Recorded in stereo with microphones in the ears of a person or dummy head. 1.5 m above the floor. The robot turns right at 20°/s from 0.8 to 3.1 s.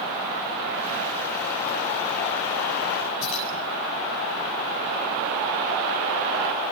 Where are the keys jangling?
70° left (ahead or behind), 7.5 m.